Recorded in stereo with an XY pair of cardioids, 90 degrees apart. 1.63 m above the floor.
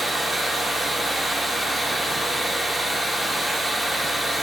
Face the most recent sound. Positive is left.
turn(degrees=-15)